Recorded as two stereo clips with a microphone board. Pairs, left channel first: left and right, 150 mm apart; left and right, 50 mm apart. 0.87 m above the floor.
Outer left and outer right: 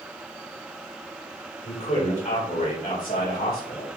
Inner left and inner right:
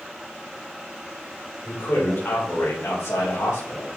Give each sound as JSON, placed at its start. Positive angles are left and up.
{"t": 1.6, "sound": "a man speaking", "side_deg": 50, "distance_m": 3.0}